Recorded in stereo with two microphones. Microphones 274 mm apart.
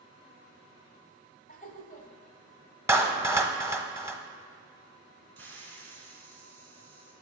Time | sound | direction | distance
1.5 | laughter | 30° left (ahead or behind) | 1.6 m
2.9 | a clap | 10° right (ahead or behind) | 1.0 m
5.4 | a hiss | 60° right (ahead or behind) | 2.5 m